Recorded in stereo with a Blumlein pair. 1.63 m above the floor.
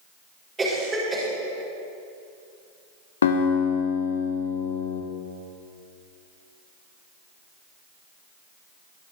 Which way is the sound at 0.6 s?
15° right.